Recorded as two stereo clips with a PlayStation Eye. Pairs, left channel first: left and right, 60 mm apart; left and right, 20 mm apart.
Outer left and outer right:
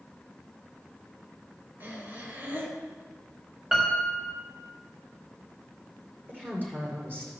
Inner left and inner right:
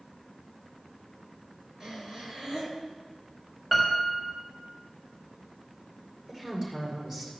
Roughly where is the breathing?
Right.